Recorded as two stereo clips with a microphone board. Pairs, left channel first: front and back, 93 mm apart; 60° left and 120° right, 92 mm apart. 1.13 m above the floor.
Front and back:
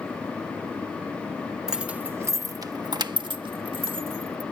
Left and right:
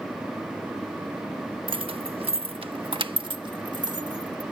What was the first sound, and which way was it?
Keys jangling, 95° right.